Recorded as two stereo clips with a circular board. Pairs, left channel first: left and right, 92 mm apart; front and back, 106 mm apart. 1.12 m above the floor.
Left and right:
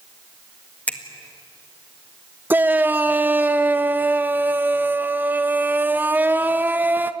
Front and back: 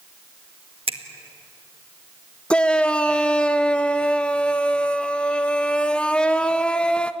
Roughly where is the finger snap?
Behind.